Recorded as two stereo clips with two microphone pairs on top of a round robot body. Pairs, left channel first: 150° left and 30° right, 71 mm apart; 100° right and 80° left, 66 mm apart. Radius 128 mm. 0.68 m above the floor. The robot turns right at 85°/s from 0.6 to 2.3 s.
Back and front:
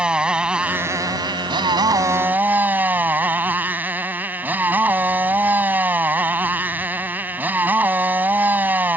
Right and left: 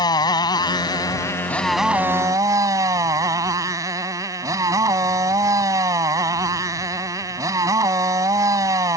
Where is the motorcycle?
110° right; by 9.0 s 35° left.